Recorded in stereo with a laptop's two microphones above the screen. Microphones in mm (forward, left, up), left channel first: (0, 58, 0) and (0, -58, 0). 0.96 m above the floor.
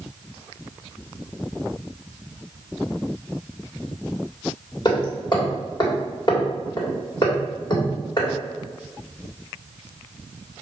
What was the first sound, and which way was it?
Hammering, 40° left (ahead or behind).